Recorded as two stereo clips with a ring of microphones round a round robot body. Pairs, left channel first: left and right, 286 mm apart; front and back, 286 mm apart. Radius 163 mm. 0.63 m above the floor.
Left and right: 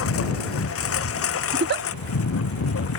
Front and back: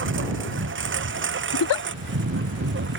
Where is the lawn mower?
130° left.